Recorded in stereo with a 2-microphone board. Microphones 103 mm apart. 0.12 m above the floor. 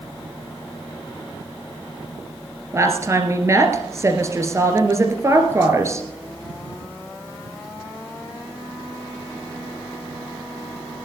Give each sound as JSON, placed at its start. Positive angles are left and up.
{"t": 2.7, "sound": "a woman speaking", "side_deg": -30, "distance_m": 2.5}